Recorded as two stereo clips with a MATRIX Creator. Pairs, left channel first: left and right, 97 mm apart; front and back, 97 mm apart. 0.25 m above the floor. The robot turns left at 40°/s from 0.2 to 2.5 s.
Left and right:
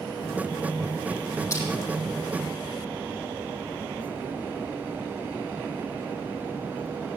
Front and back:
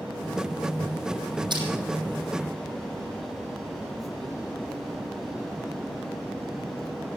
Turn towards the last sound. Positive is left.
turn(degrees=105)